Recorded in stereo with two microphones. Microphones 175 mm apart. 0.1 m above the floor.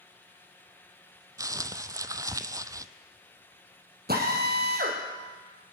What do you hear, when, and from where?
1.4 s crumpling: 20° right (ahead or behind), 0.5 m
4.1 s a drill: 65° right (ahead or behind), 3 m